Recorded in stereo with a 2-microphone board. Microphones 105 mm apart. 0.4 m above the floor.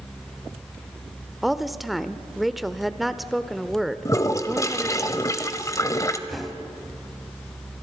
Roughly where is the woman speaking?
Centre.